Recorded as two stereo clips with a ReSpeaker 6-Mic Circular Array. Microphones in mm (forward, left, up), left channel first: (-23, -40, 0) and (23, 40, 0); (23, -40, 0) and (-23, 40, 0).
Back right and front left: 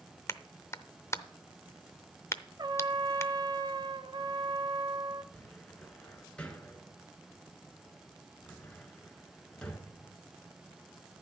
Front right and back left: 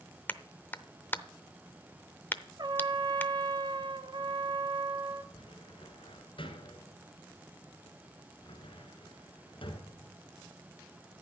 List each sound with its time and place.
0.3 s a clap: 105° right, 0.6 m
2.6 s a trumpet: 90° left, 0.6 m
5.3 s a cupboard door: 40° right, 1.8 m